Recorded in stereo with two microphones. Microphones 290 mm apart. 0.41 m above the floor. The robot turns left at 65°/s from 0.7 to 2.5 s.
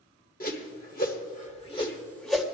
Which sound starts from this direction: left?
A whoosh, at 0.4 s.